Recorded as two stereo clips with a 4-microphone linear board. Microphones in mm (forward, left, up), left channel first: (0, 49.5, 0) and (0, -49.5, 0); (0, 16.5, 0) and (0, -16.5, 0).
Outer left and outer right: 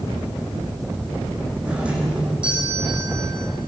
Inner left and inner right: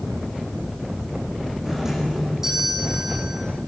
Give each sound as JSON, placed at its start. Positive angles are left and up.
{"t": 1.6, "sound": "a doorbell", "side_deg": -10, "distance_m": 8.0}